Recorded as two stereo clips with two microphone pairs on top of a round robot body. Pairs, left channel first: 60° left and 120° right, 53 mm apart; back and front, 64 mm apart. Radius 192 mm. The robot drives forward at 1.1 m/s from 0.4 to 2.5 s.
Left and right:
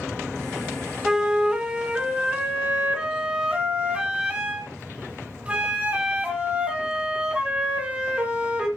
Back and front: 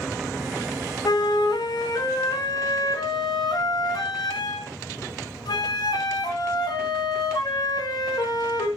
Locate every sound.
1.1 s a flute: 165° left, 1.2 m; by 8.7 s 175° left, 3 m